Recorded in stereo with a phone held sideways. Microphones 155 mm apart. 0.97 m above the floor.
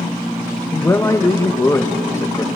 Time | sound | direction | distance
0.7 | a man speaking | 20° left (ahead or behind) | 1.2 m